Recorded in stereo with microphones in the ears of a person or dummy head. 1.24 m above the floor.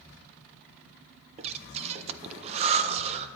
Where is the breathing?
35° right (ahead or behind), 0.5 m.